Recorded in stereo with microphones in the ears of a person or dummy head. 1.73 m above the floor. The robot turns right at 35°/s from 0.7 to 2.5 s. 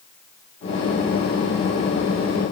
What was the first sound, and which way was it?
Only background noise.